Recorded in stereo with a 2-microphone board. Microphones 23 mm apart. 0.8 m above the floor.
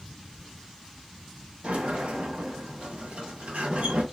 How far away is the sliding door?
About 1.2 m.